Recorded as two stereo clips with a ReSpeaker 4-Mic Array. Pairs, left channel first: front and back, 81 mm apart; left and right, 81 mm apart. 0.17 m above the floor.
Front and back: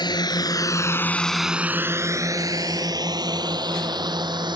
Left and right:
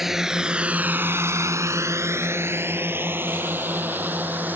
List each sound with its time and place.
0.0 s a drone: 5° right; by 4.6 s 155° right